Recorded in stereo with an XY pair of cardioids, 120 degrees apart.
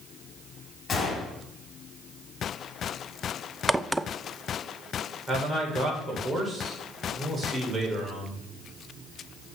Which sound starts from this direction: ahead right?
A man speaking, at 5.3 s.